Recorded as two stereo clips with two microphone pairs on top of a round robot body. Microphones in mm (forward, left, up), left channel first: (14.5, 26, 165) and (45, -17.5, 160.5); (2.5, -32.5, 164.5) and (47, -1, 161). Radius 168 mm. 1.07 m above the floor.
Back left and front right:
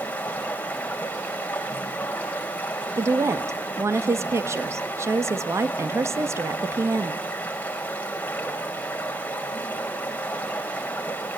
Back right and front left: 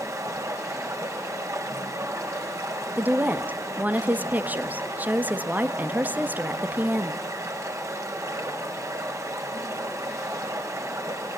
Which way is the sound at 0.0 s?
65° left.